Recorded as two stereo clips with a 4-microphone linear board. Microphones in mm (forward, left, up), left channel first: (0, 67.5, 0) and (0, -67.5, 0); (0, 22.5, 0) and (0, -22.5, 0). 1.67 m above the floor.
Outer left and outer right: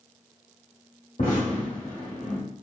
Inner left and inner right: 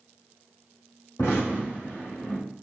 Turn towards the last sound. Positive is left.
turn(degrees=80)